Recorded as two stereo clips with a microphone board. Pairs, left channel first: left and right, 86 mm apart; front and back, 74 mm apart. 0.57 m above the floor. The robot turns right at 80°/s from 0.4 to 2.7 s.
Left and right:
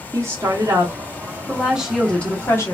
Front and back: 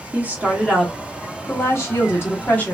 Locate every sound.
0.1 s a woman speaking: 125° right, 1.5 m; by 2.7 s 60° left, 1.5 m